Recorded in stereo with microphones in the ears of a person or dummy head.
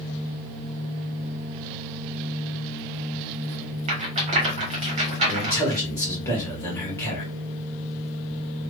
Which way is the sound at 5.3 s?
15° left (ahead or behind).